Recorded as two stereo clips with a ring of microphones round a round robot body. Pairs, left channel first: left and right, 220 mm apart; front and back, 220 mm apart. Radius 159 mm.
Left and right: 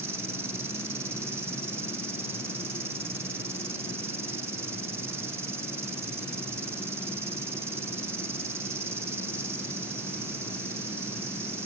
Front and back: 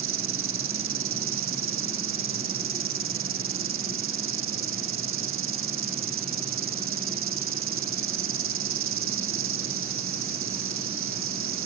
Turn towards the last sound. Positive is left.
turn(degrees=-170)